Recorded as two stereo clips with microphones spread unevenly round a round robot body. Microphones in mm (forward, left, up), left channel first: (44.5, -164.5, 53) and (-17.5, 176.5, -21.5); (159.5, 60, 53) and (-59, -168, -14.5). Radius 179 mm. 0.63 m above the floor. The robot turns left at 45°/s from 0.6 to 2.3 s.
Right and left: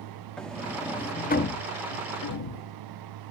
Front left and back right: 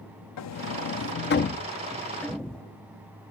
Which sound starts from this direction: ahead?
A sliding door, at 0.4 s.